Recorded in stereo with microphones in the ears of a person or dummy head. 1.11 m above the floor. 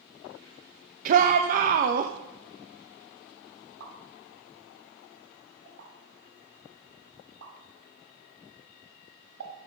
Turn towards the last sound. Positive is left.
turn(degrees=-85)